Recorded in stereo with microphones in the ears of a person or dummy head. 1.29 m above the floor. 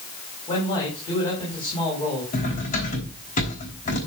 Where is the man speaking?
25° left (ahead or behind), 7 m.